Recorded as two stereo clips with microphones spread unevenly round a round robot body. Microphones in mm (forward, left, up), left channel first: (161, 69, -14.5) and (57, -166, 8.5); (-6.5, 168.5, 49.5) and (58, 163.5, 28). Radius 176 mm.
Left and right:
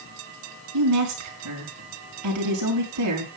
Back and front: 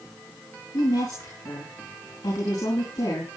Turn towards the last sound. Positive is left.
turn(degrees=-125)